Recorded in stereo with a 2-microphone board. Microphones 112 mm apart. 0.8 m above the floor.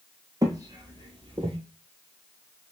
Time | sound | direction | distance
0.4 | footsteps | 35° right (ahead or behind) | 1.0 m